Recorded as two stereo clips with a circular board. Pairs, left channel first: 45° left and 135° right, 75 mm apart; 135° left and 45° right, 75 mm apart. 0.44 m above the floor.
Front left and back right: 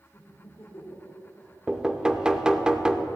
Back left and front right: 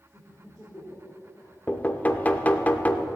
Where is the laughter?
60° left, 1.9 m; by 1.6 s 95° left, 1.8 m.